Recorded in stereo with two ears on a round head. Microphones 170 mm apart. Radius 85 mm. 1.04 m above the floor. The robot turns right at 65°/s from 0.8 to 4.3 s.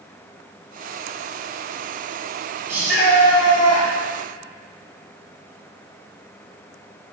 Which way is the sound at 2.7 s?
15° right.